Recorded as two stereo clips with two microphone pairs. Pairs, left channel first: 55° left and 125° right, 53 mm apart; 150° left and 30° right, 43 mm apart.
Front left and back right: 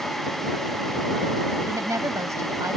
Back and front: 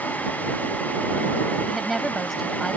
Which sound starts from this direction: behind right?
A woman speaking, at 1.7 s.